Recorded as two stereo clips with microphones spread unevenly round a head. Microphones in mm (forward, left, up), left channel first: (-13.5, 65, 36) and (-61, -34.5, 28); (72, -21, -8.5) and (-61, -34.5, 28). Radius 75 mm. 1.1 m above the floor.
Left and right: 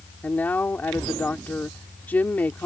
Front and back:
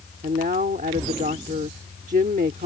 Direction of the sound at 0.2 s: 140° left.